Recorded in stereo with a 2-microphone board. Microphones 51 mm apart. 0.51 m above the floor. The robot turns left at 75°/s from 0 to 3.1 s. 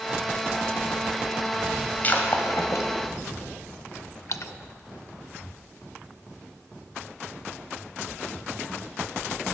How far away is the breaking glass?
About 1.4 m.